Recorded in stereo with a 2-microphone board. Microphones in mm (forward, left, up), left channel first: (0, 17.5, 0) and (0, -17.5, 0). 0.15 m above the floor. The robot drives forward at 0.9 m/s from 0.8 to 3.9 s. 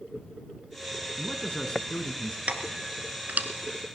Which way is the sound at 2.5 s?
40° right (ahead or behind).